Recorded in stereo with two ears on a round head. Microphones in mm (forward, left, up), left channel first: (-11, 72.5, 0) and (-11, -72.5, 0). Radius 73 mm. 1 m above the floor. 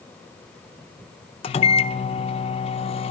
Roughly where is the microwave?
Left.